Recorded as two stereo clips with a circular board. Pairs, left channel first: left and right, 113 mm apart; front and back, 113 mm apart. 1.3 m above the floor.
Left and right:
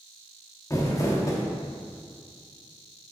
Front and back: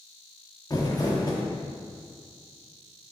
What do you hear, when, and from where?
0.7 s crumpling: 40° left, 1.0 m